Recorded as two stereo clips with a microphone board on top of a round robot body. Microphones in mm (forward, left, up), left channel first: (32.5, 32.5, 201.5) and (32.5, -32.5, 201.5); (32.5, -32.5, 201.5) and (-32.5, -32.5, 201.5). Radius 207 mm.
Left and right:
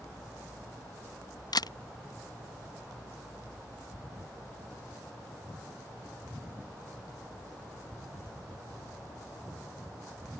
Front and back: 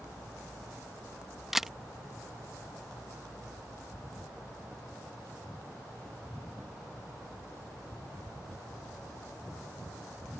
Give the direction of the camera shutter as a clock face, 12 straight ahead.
9 o'clock.